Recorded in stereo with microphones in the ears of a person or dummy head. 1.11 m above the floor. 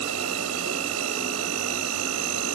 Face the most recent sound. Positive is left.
turn(degrees=-85)